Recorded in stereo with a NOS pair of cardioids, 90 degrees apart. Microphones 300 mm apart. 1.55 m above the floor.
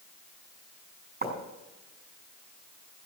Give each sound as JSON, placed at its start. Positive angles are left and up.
{"t": 1.2, "sound": "writing", "azimuth_deg": -30, "distance_m": 5.5}